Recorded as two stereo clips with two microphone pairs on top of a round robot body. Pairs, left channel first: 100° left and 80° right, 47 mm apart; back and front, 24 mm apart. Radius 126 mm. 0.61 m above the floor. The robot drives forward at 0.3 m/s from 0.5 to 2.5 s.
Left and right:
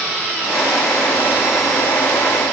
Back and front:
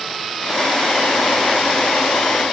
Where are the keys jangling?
No keys jangling in this recording.